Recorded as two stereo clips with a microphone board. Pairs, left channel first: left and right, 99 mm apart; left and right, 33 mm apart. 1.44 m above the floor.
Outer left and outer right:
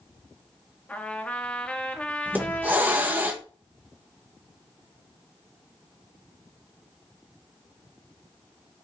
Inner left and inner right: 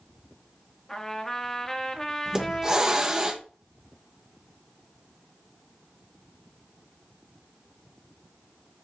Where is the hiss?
20° right (ahead or behind), 0.7 m.